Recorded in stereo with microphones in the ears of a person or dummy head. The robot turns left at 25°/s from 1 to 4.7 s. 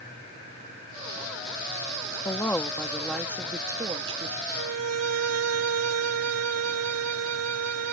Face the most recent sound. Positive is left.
turn(degrees=-90)